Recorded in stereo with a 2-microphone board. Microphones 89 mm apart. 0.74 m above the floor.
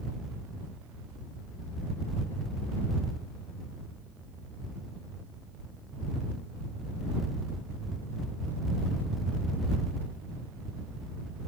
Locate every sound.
Only background noise.